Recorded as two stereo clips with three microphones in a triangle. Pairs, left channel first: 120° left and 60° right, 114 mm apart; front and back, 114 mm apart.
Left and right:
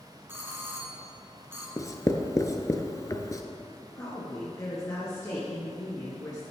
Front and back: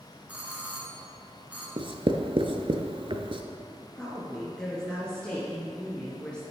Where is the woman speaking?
75° left, 2 m.